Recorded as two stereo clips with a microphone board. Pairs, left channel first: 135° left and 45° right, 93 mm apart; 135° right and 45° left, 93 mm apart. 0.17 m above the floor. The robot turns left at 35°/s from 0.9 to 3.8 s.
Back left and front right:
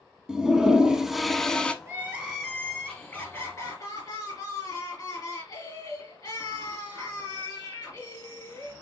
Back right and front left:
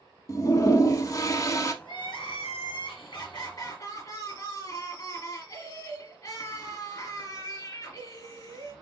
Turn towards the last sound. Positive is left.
turn(degrees=180)